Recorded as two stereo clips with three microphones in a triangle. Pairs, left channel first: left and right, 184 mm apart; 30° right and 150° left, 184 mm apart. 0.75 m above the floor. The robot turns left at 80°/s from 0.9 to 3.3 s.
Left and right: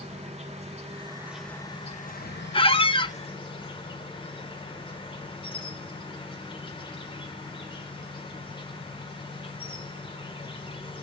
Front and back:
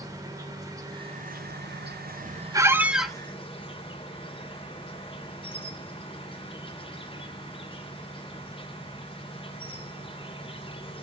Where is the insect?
140° right, 1.6 m; by 11.1 s 30° left, 1.6 m.